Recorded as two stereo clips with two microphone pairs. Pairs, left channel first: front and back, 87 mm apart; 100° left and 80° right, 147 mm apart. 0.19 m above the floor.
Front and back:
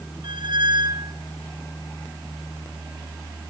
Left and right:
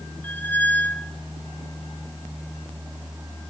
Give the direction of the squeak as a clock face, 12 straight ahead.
6 o'clock.